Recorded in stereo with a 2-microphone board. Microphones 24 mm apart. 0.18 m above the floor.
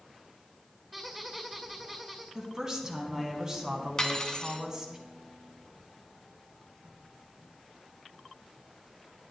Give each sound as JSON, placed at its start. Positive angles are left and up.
{"t": 0.9, "sound": "a squeak", "side_deg": -10, "distance_m": 2.0}
{"t": 2.4, "sound": "a woman speaking", "side_deg": -25, "distance_m": 1.4}
{"t": 4.0, "sound": "cutlery clinking", "side_deg": 25, "distance_m": 1.0}